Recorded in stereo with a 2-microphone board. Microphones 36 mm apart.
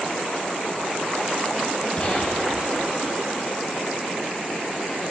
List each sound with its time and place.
2.0 s a gunshot: 35° left (ahead or behind), 3 m